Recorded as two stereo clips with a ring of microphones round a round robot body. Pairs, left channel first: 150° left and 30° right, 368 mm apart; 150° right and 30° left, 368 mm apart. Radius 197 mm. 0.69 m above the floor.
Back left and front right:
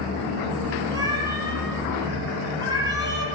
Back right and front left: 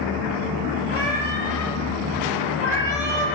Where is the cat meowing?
50° left, 5 m.